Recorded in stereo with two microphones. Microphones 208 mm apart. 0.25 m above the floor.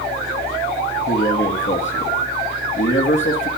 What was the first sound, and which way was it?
A man speaking, 70° left (ahead or behind).